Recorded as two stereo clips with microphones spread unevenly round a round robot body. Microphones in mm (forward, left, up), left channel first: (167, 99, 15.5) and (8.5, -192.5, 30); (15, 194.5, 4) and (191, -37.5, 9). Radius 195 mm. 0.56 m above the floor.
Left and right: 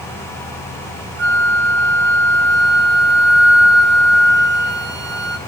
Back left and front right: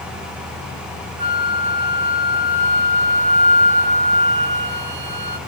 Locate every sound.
1.2 s a flute: 60° right, 1.9 m